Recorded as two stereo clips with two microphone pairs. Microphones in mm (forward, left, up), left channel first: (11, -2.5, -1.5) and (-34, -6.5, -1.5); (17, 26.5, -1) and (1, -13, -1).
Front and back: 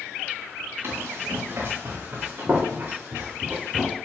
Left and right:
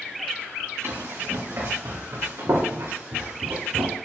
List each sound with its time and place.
0.8 s running footsteps: 135° right, 4 m; by 4.0 s 115° right, 2.5 m